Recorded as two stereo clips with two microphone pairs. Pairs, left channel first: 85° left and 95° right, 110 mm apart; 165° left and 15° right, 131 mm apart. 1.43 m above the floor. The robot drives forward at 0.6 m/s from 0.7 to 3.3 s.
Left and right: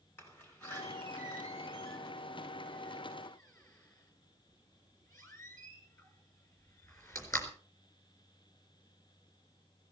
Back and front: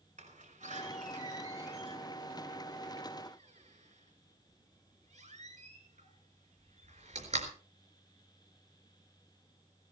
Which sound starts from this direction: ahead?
A door slam, at 0.2 s.